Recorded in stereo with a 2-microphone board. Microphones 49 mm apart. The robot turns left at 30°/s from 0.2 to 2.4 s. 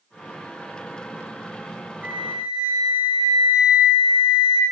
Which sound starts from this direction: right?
A flute, at 2.0 s.